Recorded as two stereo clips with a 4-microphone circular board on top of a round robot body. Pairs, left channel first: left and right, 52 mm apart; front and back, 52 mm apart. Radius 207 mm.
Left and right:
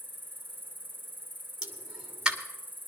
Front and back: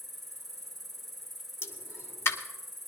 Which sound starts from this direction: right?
An insect, at 0.0 s.